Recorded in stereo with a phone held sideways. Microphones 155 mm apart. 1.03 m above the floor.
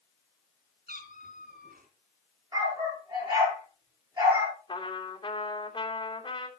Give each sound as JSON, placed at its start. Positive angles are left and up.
{"t": 0.9, "sound": "a cat meowing", "side_deg": -75, "distance_m": 3.0}
{"t": 2.5, "sound": "a dog barking", "side_deg": -25, "distance_m": 9.5}
{"t": 4.7, "sound": "a trumpet", "side_deg": 35, "distance_m": 2.5}